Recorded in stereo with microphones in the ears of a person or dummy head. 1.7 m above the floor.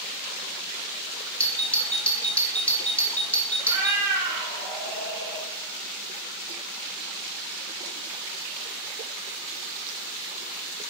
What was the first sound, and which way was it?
A doorbell, 10° left (ahead or behind).